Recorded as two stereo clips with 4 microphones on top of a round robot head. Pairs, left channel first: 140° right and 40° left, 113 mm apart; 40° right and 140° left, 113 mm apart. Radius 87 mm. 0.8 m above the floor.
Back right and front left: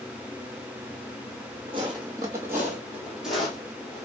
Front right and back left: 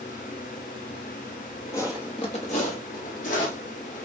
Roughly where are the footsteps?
Ahead.